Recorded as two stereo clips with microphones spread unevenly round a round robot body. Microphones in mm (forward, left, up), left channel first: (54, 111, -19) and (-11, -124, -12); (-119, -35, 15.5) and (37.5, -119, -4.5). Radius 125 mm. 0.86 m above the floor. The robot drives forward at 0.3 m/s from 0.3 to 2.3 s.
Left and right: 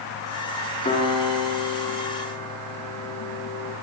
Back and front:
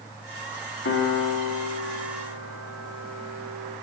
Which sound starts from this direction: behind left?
A piano, at 0.8 s.